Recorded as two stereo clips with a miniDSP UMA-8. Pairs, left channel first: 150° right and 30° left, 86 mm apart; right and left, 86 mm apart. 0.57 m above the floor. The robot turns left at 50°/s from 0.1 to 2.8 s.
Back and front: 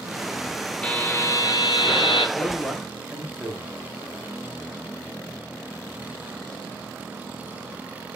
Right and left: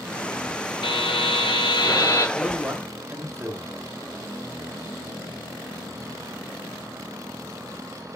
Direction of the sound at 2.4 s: 160° left.